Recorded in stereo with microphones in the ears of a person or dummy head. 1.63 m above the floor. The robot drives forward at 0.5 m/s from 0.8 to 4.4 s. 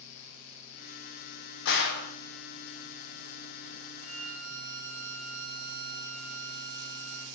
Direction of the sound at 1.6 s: 70° left (ahead or behind).